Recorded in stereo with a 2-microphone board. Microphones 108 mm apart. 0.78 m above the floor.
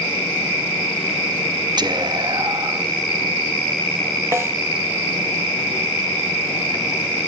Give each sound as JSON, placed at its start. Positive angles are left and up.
{"t": 1.8, "sound": "whispering", "side_deg": -45, "distance_m": 0.6}
{"t": 4.3, "sound": "a snare drum", "side_deg": -25, "distance_m": 1.0}